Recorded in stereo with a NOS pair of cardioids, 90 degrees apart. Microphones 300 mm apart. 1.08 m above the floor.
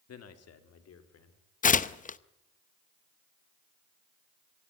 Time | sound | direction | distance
0.1 | a man speaking | 60° left | 2.5 m
1.6 | tearing paper | 30° left | 0.8 m